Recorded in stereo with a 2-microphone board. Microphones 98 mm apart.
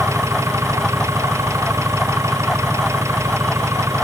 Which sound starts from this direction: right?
An engine running, at 0.0 s.